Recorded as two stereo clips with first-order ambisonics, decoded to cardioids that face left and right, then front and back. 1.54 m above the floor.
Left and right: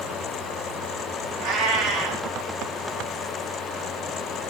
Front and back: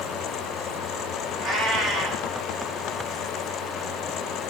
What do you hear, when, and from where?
1.4 s a cat meowing: 105° right, 2.5 m